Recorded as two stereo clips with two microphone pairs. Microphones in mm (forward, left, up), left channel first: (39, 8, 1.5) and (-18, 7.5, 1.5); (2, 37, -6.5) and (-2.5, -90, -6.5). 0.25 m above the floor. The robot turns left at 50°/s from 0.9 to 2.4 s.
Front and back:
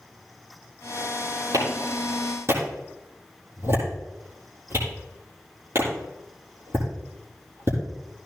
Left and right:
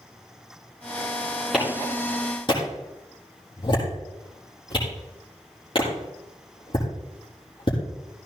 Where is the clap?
175° right, 8 m; by 7.8 s 140° left, 8 m.